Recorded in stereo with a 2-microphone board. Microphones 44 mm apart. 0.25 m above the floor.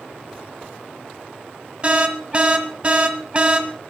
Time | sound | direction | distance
1.8 | an alarm | 30° right (ahead or behind) | 1.3 m